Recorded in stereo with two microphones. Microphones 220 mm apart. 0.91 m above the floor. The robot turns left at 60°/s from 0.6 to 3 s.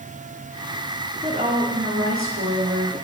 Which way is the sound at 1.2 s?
25° right.